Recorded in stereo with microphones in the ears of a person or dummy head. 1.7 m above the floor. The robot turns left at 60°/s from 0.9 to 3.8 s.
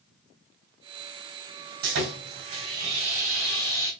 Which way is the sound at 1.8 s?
85° right.